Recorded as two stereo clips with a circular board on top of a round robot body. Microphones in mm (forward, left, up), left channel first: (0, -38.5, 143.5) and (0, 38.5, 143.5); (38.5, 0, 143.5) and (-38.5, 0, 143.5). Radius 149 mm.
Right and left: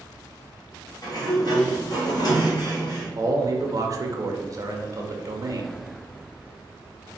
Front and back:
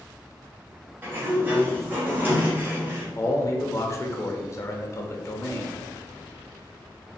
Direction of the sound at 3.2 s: 50° left.